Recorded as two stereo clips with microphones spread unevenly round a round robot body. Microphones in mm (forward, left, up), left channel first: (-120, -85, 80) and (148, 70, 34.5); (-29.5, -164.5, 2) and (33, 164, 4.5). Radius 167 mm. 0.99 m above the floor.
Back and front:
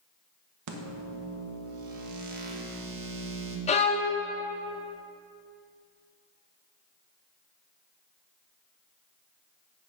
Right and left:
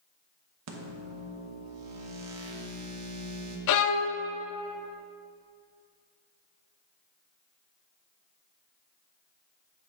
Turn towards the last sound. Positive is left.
turn(degrees=-95)